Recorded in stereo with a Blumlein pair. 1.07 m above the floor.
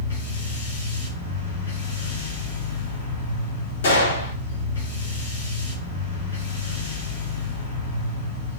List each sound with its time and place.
0.0 s a machine running: 65° left, 1.1 m
3.8 s a gunshot: 60° left, 1.1 m